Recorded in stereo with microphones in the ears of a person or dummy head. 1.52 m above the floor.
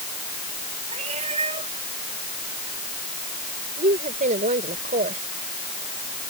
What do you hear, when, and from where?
0.9 s a cat meowing: 35° right (ahead or behind)
3.8 s a woman speaking: 40° right (ahead or behind)